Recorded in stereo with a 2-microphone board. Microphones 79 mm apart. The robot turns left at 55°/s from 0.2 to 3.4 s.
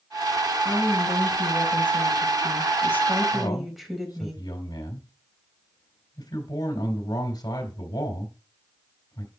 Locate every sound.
0.6 s a woman speaking: 150° left, 4 m; by 4.3 s straight ahead, 4 m
3.3 s a man speaking: 65° left (ahead or behind), 3 m